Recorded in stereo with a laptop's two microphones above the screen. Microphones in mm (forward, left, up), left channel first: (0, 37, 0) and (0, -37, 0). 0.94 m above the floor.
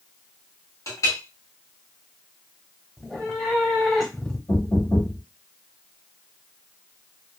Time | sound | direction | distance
0.9 | a clink | 45° left (ahead or behind) | 1.0 m
3.0 | a cat meowing | 5° left (ahead or behind) | 0.8 m
4.5 | knocking | 45° left (ahead or behind) | 1.4 m